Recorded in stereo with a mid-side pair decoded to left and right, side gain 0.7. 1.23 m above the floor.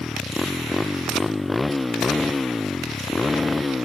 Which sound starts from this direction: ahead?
A motorcycle, at 0.0 s.